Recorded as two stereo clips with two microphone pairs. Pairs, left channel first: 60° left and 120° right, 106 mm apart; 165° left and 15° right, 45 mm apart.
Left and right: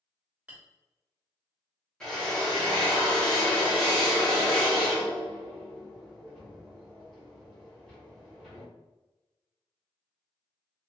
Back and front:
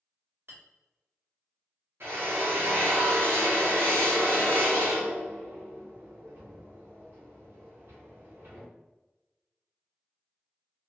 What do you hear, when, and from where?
0.5 s a clink: 45° right, 1.3 m
2.0 s a drill: 25° right, 1.2 m